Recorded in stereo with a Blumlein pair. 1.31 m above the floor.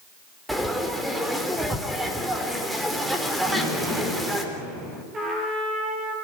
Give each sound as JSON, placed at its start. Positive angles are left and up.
{"t": 0.5, "sound": "frying", "azimuth_deg": 0, "distance_m": 3.5}
{"t": 3.5, "sound": "an explosion", "azimuth_deg": -5, "distance_m": 7.0}
{"t": 5.1, "sound": "a trumpet", "azimuth_deg": -25, "distance_m": 7.5}